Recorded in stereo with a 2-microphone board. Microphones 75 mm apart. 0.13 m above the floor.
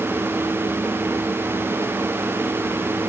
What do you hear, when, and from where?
Only background noise.